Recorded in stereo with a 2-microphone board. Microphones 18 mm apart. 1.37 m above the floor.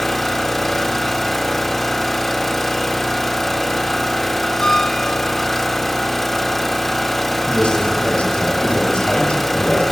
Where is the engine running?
10° left (ahead or behind), 1.5 m.